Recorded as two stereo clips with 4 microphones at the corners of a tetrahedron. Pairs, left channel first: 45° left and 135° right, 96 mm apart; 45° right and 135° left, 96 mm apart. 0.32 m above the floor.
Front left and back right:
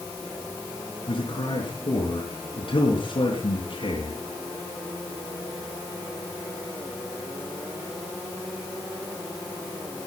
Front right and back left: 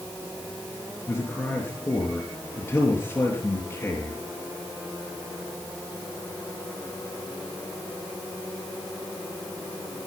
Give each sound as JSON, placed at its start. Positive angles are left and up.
{"t": 1.1, "sound": "a man speaking", "azimuth_deg": 25, "distance_m": 4.5}